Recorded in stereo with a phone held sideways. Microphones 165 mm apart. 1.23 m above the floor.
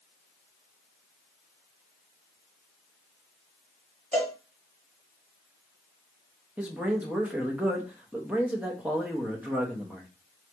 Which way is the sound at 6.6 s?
10° right (ahead or behind).